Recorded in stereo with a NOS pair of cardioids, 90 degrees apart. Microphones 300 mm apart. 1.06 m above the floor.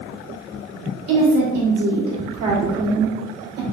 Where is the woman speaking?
60° right, 1.8 m.